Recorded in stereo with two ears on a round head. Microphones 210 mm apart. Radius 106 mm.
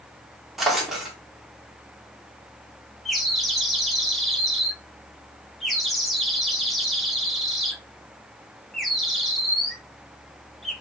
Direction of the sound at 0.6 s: Centre (ahead or behind).